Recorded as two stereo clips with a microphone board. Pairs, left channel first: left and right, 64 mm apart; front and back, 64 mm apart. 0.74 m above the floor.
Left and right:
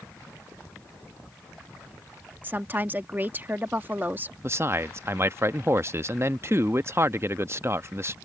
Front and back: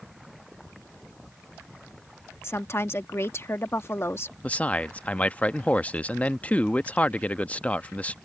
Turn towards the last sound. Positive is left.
turn(degrees=-60)